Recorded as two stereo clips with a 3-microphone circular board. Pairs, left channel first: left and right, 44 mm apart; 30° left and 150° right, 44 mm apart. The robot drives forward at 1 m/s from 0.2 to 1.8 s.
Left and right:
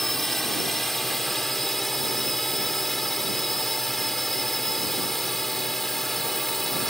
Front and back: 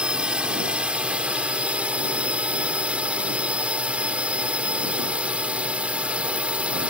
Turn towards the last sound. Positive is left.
turn(degrees=170)